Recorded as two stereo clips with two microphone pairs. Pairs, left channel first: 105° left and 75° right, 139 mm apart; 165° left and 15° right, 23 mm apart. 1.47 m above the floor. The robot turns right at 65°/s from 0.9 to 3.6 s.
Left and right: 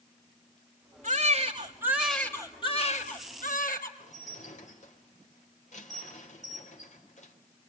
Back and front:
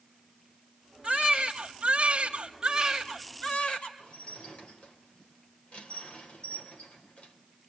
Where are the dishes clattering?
140° left, 3.5 m.